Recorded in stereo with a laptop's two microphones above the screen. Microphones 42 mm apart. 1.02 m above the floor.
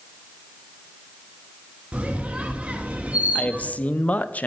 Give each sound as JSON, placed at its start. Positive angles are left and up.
{"t": 1.9, "sound": "a squeak", "side_deg": -30, "distance_m": 1.4}
{"t": 3.4, "sound": "a man speaking", "side_deg": 35, "distance_m": 0.7}